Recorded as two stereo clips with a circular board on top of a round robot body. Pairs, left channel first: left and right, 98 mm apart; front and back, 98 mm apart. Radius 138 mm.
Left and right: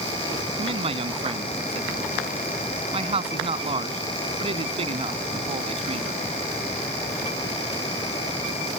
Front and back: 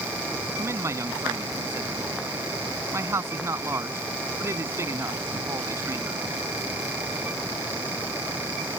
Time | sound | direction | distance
0.6 | a man speaking | 120° right | ?